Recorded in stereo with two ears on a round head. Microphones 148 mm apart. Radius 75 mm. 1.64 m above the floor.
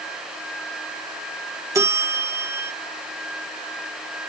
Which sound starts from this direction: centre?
A bell, at 1.8 s.